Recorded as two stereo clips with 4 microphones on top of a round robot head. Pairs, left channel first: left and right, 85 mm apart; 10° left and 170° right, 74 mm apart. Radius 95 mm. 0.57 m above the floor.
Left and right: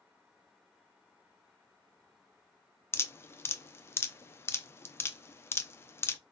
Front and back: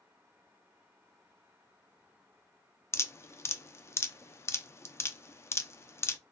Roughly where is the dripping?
Ahead left.